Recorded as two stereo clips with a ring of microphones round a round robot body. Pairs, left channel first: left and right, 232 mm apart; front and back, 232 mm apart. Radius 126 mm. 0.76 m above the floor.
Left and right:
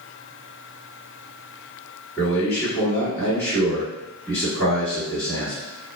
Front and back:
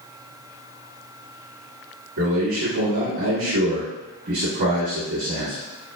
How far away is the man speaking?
About 1.6 m.